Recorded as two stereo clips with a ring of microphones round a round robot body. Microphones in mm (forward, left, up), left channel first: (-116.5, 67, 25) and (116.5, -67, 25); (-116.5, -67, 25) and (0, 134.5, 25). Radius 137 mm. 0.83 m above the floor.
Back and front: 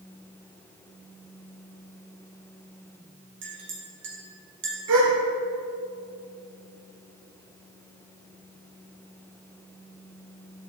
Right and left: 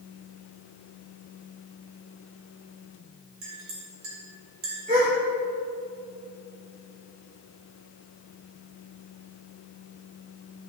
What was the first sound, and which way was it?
A clink, 20° left.